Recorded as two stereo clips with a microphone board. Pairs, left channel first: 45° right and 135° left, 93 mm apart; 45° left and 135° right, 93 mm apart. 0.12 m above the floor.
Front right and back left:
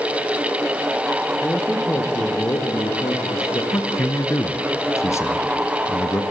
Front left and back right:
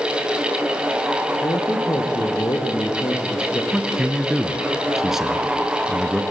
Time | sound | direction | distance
1.4 | a man speaking | 25° left | 2 m
3.7 | a man speaking | 55° right | 1.5 m